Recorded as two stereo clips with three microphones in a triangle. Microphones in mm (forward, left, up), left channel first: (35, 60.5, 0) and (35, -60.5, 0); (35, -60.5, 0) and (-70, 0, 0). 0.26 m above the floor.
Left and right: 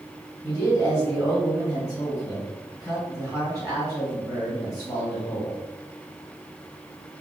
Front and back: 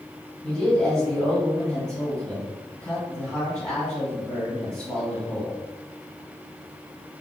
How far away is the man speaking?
About 1.8 m.